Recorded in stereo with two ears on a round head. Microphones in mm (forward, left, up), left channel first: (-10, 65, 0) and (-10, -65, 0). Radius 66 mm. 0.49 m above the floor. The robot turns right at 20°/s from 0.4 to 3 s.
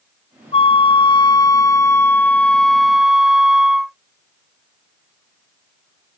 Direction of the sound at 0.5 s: 135° left.